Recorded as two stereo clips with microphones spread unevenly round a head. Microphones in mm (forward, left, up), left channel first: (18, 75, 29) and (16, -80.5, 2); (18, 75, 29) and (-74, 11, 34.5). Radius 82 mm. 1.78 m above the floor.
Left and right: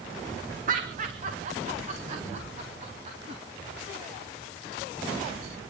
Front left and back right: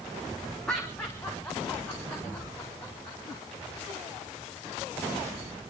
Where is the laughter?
50° right, 1.4 m; by 3.4 s 45° right, 3.5 m.